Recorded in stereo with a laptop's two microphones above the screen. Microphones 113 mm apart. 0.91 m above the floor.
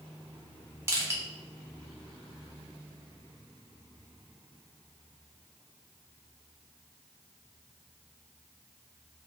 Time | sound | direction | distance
0.9 | crushing | 25° right (ahead or behind) | 0.6 m